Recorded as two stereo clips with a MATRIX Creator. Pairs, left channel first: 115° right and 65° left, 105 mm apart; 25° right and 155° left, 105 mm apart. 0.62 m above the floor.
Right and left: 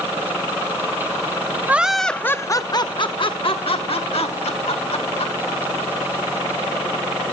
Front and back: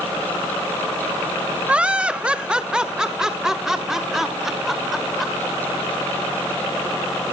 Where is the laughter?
100° left, 0.5 m; by 5.3 s 115° right, 1.9 m.